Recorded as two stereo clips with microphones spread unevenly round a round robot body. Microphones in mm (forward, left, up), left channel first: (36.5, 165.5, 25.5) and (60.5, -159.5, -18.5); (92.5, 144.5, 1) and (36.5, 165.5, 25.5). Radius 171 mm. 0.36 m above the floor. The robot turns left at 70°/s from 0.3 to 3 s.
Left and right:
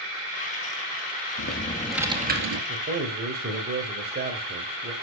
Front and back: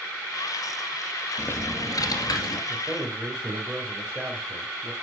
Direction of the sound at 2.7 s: 80° right.